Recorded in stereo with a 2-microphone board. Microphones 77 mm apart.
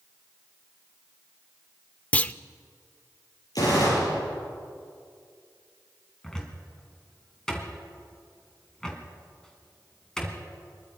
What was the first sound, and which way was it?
A clunk, 20° left (ahead or behind).